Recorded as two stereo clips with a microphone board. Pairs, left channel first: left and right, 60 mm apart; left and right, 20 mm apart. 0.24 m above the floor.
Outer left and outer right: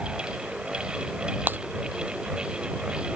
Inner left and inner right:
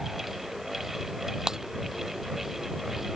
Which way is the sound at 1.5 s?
30° right (ahead or behind).